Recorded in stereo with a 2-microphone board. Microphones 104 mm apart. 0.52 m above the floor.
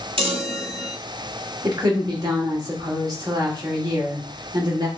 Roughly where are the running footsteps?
No running footsteps in this recording.